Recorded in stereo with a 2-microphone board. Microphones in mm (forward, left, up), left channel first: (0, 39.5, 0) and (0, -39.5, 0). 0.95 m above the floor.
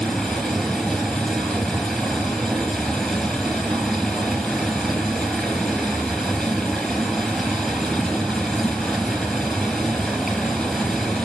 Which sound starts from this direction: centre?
Running water, at 0.0 s.